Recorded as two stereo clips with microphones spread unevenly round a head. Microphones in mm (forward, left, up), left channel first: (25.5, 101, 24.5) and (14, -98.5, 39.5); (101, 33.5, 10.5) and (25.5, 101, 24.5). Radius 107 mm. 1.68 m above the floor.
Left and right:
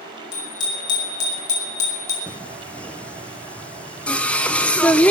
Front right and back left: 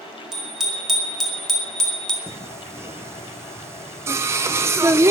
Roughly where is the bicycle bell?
Ahead left.